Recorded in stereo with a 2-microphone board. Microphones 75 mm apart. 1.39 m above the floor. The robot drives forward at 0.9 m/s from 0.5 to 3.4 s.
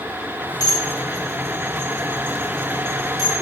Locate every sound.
0.6 s dishes clattering: 60° left (ahead or behind), 2.5 m; by 3.3 s 55° left (ahead or behind), 2.5 m